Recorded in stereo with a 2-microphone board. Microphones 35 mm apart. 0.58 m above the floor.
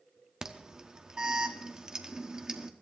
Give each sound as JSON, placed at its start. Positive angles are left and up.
{"t": 0.4, "sound": "an alarm", "side_deg": -20, "distance_m": 1.0}